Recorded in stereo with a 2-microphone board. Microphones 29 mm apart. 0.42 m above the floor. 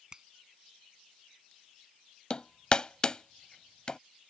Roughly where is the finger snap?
Centre.